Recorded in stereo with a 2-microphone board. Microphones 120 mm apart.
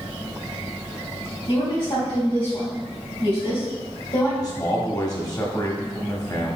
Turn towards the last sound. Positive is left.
turn(degrees=35)  # may be behind; listen again after turning